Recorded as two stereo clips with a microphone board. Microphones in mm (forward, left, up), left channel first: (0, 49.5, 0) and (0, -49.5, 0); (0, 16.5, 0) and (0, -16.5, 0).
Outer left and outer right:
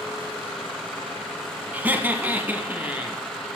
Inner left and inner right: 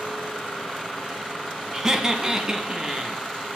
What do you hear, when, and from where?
1.7 s laughter: 20° right (ahead or behind), 1.1 m; by 3.2 s 15° right (ahead or behind), 1.9 m